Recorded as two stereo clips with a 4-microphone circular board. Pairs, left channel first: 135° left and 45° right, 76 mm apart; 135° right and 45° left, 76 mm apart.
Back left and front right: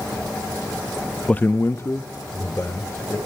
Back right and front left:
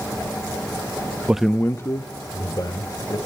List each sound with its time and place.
1.3 s a man speaking: 80° left, 0.5 m; by 3.2 s 170° right, 3 m